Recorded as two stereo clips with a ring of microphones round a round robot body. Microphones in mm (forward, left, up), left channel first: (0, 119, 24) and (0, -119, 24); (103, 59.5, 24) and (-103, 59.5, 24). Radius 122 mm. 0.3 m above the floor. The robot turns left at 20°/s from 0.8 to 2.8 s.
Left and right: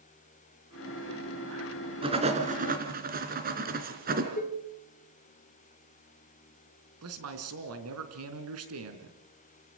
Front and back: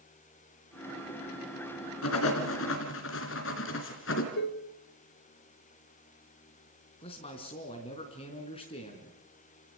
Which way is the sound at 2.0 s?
20° right.